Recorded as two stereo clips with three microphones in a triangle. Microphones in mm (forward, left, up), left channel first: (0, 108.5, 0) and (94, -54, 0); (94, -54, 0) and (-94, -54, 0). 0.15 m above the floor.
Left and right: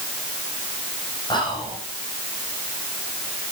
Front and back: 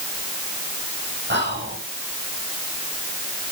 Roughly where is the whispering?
Behind.